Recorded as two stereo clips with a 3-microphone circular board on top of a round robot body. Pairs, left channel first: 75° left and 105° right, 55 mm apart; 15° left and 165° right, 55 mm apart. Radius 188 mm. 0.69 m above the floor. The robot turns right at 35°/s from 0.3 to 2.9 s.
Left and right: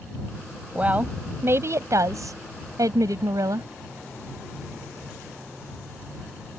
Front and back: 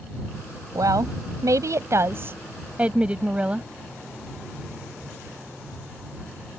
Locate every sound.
0.8 s a woman speaking: 170° right; by 3.7 s 95° right